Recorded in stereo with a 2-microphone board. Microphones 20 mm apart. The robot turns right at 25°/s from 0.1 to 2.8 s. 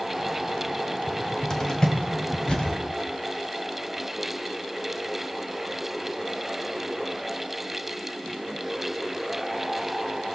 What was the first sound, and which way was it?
A cupboard door, 15° left (ahead or behind).